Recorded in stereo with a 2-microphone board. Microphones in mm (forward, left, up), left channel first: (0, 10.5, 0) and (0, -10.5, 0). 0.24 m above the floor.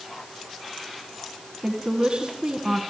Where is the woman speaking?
60° right (ahead or behind), 2.5 m.